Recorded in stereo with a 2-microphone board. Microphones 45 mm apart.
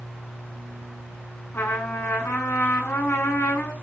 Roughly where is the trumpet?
Left.